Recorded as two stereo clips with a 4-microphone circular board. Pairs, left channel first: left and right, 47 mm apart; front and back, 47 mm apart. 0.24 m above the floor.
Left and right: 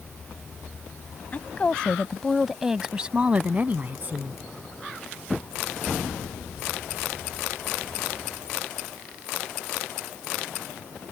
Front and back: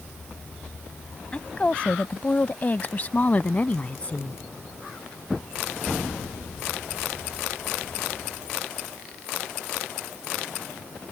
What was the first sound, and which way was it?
A woman speaking, 55° left.